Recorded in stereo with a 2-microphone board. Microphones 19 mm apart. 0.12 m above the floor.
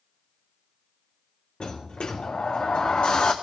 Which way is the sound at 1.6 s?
65° left (ahead or behind).